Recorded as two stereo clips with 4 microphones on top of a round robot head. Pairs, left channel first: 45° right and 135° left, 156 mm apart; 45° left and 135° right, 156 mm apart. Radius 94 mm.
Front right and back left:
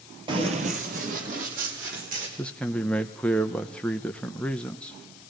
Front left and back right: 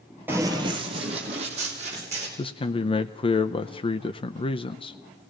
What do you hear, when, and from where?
0.3 s running footsteps: 160° left, 1.0 m; by 2.3 s 175° left, 3 m
2.4 s a man speaking: 35° left, 0.6 m